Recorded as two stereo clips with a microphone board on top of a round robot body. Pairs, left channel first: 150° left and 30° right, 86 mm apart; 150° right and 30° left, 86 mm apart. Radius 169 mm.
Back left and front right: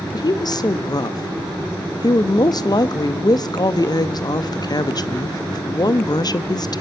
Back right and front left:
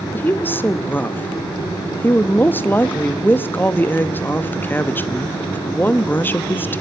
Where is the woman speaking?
150° left, 0.9 m.